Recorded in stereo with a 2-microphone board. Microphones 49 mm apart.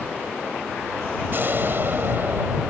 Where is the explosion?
50° right (ahead or behind).